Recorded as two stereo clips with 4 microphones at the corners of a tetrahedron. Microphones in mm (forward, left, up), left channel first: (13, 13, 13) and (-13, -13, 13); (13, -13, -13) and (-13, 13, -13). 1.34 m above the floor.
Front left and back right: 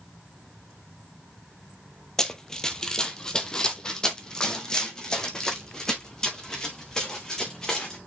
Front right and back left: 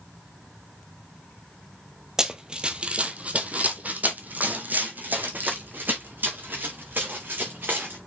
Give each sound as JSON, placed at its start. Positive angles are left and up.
{"t": 2.2, "sound": "running footsteps", "azimuth_deg": 100, "distance_m": 1.4}